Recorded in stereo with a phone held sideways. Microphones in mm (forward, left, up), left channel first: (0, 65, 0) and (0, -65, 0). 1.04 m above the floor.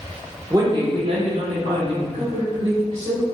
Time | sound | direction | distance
0.5 | a woman speaking | 25° right (ahead or behind) | 0.8 m